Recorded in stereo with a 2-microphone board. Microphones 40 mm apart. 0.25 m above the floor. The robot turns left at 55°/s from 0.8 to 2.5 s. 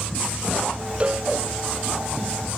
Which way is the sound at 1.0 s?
35° right (ahead or behind).